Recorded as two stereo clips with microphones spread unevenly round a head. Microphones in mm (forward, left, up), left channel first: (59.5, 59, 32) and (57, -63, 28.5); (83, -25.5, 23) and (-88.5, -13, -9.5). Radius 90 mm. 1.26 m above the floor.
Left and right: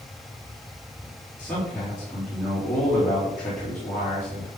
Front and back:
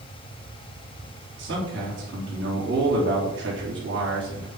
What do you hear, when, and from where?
1.4 s a man speaking: 175° left, 3.5 m